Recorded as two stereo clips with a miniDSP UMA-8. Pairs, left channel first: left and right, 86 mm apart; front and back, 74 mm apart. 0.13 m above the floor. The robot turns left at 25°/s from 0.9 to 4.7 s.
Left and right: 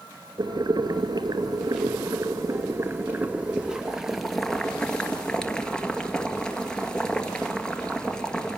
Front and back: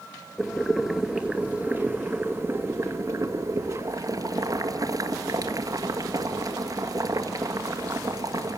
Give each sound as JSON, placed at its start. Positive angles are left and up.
{"t": 0.4, "sound": "boiling", "azimuth_deg": -95, "distance_m": 2.0}